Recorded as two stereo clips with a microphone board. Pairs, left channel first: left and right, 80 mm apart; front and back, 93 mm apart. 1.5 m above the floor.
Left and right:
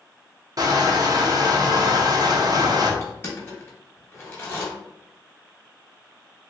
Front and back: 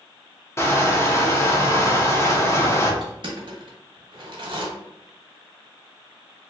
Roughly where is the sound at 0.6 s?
Ahead right.